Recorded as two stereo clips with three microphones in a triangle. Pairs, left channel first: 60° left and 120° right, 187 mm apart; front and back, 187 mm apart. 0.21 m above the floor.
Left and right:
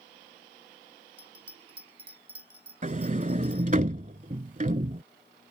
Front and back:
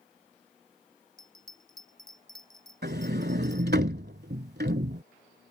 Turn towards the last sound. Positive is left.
turn(degrees=-160)